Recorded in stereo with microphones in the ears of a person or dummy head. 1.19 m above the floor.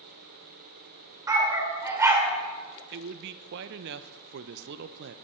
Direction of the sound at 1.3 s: 10° right (ahead or behind).